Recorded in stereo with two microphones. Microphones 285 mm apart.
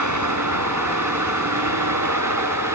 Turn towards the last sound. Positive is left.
turn(degrees=-85)